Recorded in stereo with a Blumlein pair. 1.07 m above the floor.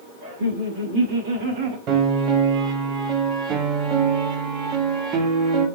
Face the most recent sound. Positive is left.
turn(degrees=-35)